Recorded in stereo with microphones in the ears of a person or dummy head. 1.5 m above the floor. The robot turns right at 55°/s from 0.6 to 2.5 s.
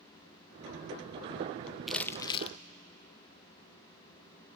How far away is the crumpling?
About 0.7 m.